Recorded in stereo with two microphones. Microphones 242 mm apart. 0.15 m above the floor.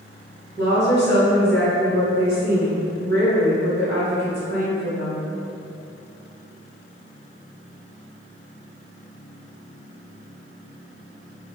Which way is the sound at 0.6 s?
45° right (ahead or behind).